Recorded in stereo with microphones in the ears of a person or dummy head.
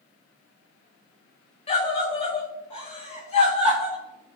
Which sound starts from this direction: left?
A scream, at 1.7 s.